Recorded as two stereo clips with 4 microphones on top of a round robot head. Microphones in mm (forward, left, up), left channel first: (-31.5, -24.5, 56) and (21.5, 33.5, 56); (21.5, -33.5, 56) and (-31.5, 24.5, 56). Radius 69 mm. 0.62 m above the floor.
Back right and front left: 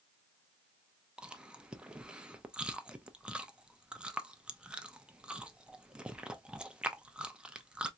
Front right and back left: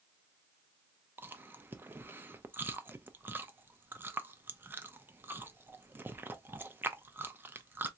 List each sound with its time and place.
1.2 s chewing: 110° left, 0.7 m